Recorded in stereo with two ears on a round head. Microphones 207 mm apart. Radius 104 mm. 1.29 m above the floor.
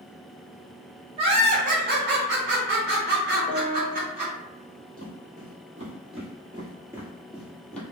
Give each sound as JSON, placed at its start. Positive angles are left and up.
{"t": 1.2, "sound": "laughter", "side_deg": -25, "distance_m": 0.9}
{"t": 3.5, "sound": "a piano", "side_deg": 35, "distance_m": 0.7}
{"t": 5.0, "sound": "footsteps", "side_deg": -35, "distance_m": 2.0}